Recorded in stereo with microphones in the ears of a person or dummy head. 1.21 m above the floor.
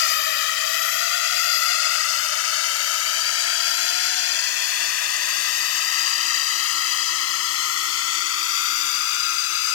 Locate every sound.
0.0 s a drone: 60° left (ahead or behind); by 9.8 s 85° left